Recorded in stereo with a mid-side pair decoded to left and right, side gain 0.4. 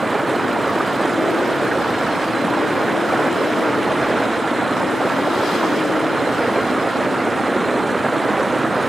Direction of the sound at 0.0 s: 25° right.